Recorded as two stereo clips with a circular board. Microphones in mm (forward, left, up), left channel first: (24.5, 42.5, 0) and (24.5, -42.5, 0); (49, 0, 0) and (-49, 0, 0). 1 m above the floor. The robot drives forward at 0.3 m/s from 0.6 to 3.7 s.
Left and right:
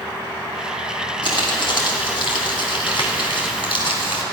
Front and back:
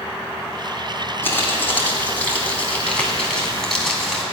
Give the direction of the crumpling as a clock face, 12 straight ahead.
10 o'clock.